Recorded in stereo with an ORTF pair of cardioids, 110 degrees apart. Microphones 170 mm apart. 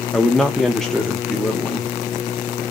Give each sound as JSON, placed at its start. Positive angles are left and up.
{"t": 0.1, "sound": "a man speaking", "azimuth_deg": 5, "distance_m": 0.5}